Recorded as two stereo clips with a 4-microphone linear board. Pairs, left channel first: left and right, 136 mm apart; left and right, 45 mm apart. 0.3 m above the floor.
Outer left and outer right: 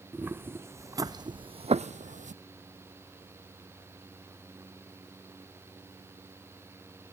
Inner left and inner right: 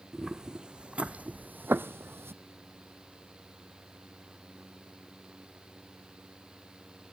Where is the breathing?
No breathing in this recording.